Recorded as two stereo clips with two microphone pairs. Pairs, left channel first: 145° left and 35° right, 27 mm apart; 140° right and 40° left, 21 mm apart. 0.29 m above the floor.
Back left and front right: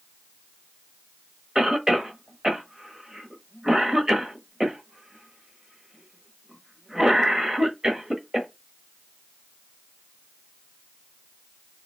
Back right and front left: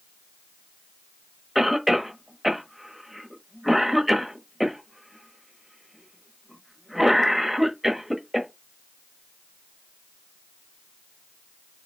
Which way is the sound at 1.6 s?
25° right.